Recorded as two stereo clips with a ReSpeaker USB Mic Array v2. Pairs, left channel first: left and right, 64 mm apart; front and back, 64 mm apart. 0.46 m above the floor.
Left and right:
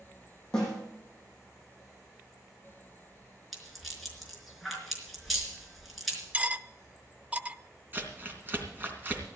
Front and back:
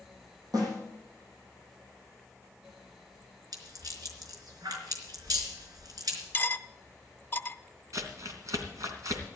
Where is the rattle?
Straight behind, 4 m.